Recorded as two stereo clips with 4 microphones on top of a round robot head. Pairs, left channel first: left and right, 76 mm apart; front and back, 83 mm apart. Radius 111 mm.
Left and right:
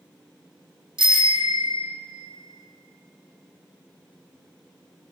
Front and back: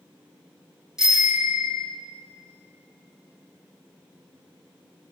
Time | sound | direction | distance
1.0 | a bicycle bell | 95° right | 3 m